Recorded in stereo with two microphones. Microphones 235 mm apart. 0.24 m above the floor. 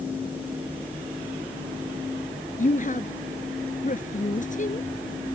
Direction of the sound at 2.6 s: 35° left (ahead or behind).